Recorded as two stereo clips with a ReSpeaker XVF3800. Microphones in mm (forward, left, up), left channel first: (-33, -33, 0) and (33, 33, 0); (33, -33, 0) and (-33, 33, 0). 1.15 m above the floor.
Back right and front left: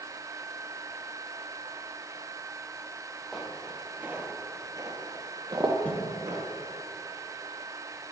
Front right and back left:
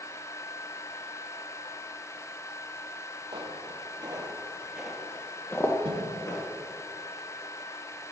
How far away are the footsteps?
About 2.5 m.